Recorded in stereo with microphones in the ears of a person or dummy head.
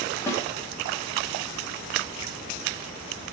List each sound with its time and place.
0.3 s a snare drum: 15° left (ahead or behind), 1.2 m